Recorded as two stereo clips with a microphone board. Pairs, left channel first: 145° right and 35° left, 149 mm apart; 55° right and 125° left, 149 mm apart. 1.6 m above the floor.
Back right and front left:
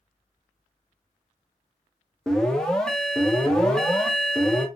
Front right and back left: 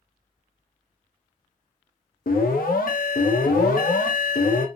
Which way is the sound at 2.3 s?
60° right.